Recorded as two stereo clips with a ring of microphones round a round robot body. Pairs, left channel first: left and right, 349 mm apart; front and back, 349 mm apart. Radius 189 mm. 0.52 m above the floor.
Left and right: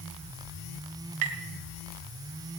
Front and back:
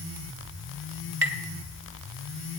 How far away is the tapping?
About 1.5 m.